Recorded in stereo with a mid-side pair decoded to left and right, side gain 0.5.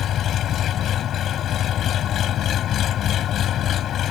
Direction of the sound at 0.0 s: 55° left.